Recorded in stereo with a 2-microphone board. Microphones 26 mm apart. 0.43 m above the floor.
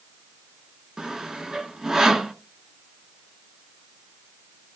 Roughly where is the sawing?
Right.